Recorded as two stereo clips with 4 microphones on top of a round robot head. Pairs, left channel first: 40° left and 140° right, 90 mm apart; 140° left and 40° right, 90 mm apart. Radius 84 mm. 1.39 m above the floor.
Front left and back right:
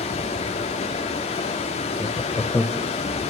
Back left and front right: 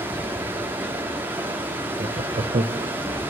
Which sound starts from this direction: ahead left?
Running water, at 0.0 s.